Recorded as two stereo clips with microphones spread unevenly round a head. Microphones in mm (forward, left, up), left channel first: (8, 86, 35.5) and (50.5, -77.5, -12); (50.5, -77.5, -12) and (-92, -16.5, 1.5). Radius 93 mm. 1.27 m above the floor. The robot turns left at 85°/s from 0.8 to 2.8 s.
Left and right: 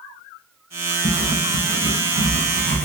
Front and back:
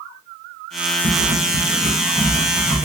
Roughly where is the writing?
Behind.